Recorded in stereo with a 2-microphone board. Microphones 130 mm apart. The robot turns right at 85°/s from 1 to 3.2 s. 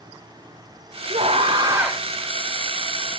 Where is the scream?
85° right, 1.6 m; by 2.0 s 5° right, 1.6 m.